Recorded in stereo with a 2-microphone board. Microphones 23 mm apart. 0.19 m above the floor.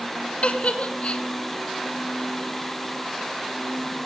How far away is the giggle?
About 1.5 m.